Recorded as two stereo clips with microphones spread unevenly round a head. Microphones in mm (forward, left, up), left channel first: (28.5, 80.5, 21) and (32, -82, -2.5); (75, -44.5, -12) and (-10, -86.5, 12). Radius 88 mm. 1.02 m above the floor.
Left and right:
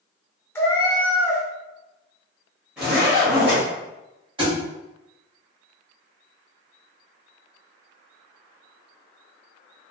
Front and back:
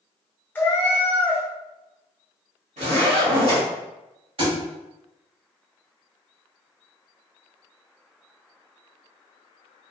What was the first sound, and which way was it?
A cat meowing, 105° left.